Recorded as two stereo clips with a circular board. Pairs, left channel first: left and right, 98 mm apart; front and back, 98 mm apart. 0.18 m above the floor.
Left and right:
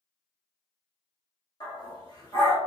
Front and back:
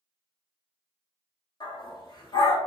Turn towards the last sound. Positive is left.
turn(degrees=45)